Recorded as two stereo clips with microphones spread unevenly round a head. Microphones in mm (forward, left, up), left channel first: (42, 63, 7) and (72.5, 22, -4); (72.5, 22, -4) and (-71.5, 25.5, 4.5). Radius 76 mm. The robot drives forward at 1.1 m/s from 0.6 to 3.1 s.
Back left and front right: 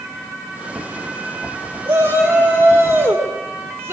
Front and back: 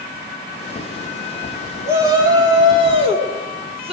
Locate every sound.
1.9 s a shout: 105° right, 4 m; by 3.9 s 125° right, 4.5 m